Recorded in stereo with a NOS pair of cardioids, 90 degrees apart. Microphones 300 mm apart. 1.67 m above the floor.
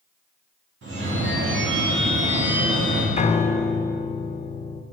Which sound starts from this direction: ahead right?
A phone ringing, at 0.8 s.